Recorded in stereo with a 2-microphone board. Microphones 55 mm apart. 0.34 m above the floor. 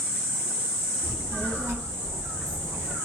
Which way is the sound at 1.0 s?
60° right (ahead or behind).